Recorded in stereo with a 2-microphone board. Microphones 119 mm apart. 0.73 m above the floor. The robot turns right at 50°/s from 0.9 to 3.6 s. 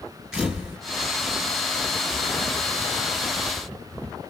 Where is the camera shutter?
5° right (ahead or behind), 2 m.